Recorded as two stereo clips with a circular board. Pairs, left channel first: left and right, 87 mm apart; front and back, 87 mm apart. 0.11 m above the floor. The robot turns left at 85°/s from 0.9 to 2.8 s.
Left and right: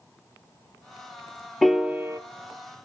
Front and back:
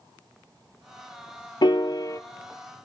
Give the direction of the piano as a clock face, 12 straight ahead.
12 o'clock.